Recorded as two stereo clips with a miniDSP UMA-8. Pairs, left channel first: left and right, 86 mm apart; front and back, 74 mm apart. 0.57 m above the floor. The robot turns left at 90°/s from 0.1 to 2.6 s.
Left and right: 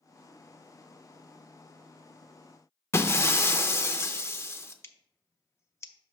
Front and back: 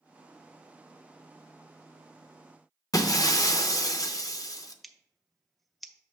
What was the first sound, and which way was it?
Breaking glass, 30° left.